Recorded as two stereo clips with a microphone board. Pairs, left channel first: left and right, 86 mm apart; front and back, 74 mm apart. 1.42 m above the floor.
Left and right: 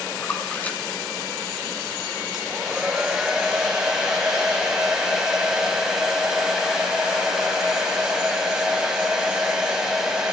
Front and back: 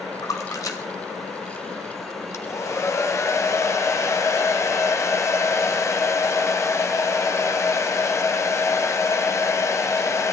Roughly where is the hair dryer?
Ahead.